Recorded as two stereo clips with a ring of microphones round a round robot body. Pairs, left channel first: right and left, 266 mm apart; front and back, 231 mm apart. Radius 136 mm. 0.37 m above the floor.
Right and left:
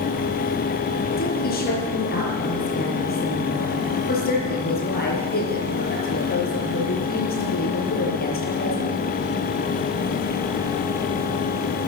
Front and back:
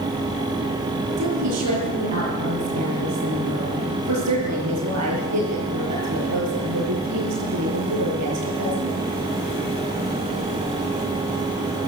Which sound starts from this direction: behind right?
A woman speaking, at 1.2 s.